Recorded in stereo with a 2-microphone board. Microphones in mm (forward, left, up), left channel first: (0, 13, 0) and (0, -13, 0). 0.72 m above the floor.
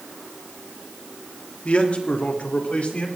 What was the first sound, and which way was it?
A man speaking, 60° left (ahead or behind).